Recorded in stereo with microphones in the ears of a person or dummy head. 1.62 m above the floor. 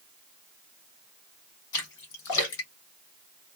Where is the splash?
65° left (ahead or behind), 3 m.